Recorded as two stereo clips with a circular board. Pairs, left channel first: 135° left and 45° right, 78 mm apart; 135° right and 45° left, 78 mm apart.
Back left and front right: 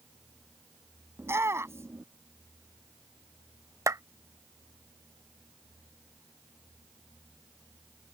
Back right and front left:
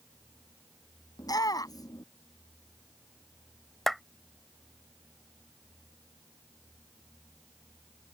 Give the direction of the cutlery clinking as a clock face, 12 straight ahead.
No cutlery clinking in this recording.